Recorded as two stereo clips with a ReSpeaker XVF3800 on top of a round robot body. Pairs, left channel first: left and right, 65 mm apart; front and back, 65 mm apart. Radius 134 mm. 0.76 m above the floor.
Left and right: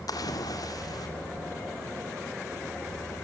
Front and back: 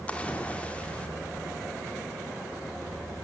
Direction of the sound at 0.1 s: 70° left.